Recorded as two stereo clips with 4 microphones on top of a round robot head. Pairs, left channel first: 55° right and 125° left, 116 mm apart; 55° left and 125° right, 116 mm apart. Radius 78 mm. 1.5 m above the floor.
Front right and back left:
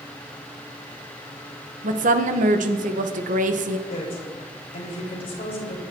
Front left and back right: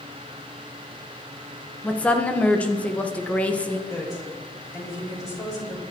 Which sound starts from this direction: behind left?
A woman speaking, at 1.8 s.